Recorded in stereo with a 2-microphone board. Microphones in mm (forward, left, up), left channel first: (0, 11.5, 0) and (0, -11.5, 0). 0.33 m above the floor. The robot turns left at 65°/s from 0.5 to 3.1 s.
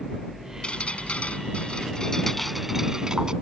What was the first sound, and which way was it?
Dripping, 125° left.